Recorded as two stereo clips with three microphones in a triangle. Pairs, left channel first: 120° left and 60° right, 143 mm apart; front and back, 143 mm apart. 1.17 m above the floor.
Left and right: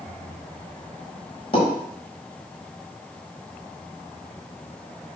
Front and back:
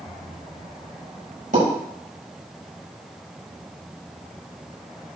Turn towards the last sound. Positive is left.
turn(degrees=170)